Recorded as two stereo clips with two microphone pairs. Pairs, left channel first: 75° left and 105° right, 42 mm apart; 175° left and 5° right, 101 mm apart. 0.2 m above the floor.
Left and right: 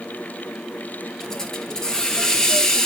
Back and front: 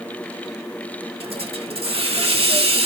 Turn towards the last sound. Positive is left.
turn(degrees=5)